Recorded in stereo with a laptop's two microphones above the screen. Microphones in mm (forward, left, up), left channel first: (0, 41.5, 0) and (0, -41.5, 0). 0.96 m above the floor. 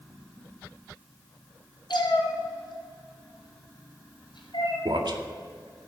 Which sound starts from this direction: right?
A man speaking, at 4.8 s.